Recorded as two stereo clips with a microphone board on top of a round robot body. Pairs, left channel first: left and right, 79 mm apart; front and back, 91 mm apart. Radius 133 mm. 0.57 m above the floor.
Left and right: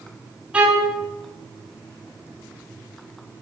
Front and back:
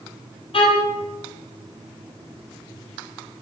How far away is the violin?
About 4.5 m.